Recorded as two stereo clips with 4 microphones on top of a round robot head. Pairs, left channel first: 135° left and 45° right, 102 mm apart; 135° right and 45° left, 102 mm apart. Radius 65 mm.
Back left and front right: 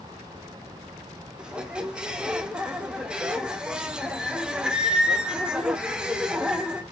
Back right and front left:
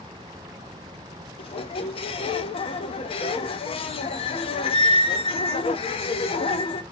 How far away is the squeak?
About 0.7 m.